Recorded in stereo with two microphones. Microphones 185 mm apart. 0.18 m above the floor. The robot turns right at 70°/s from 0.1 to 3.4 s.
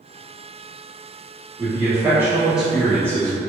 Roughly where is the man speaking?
Centre.